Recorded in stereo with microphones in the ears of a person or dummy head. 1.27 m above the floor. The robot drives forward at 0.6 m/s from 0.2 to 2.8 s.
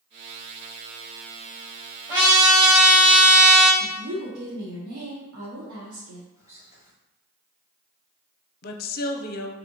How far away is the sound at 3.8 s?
About 1.0 m.